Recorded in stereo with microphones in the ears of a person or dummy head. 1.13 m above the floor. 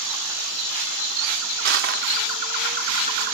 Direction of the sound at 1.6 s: 65° right (ahead or behind).